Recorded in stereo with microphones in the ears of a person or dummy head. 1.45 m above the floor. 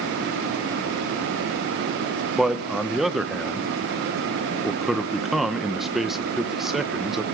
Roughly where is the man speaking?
Centre.